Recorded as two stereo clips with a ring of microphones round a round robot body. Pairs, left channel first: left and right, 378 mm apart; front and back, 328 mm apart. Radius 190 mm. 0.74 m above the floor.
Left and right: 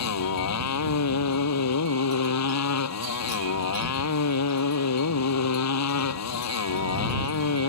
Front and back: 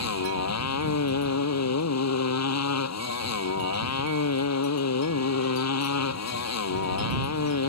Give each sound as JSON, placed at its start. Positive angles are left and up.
{"t": 0.0, "sound": "a motorcycle", "azimuth_deg": 40}